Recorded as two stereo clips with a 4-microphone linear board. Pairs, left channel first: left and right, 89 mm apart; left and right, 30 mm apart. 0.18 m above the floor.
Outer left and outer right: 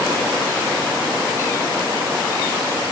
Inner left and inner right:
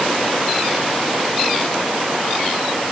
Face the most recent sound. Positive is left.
No sound to turn to.